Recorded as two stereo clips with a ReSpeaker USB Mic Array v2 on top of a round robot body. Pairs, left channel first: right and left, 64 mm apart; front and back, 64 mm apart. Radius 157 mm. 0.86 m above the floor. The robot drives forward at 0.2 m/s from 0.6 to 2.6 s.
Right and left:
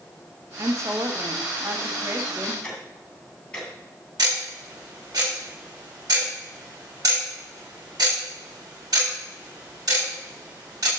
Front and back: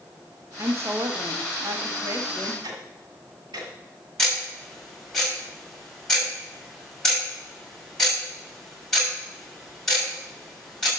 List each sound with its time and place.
0.6 s a woman speaking: 130° left, 1.3 m; by 2.5 s 140° left, 1.6 m
2.6 s ticking: 165° right, 2.5 m
4.2 s ticking: 80° left, 6.5 m